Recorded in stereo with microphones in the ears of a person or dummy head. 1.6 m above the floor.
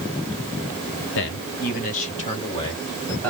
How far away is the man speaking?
About 1.0 m.